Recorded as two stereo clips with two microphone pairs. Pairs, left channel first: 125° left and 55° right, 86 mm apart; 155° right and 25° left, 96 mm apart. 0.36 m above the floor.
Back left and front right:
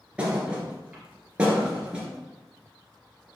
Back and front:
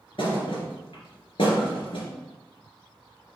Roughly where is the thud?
Behind right.